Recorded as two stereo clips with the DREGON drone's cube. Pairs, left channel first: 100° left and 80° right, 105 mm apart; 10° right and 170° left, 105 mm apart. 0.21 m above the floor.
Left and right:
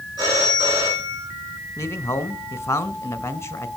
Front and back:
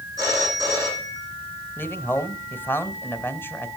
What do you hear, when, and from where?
0.2 s a phone ringing: 130° right, 10 m
1.8 s a man speaking: 50° left, 1.4 m